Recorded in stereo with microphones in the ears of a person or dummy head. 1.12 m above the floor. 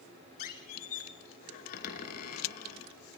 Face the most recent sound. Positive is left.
turn(degrees=50)  # may be behind; listen again after turning